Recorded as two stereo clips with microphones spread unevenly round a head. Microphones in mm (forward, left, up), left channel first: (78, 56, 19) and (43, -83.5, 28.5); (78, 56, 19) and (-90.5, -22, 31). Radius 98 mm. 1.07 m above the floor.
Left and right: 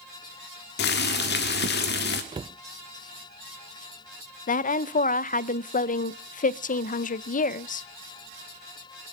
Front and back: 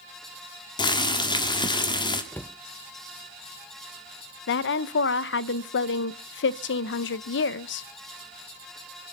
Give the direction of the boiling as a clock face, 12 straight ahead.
9 o'clock.